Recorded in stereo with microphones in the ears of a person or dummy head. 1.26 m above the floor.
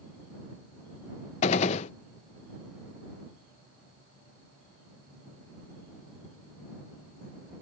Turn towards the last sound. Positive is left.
turn(degrees=35)  # may be behind; listen again after turning